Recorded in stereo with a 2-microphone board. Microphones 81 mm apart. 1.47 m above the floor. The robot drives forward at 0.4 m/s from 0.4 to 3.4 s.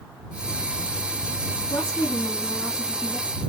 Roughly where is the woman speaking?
Left.